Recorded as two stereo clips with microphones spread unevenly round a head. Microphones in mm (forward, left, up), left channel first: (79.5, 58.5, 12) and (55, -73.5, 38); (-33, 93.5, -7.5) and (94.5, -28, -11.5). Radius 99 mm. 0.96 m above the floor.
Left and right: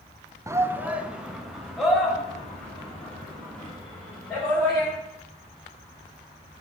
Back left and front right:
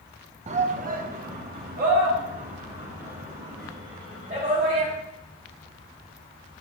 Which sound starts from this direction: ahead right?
A shout, at 0.5 s.